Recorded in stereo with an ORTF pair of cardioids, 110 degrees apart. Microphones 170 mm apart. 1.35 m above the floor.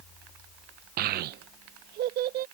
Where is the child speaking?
65° right; by 2.5 s 75° right.